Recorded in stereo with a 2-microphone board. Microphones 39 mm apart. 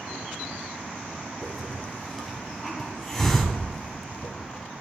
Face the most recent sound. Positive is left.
turn(degrees=5)  # may be behind; listen again after turning